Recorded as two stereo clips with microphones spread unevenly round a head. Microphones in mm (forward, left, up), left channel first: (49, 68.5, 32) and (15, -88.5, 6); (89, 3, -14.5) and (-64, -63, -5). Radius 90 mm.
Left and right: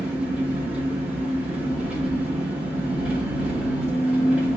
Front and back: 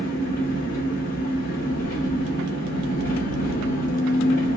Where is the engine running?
20° right, 1.8 m.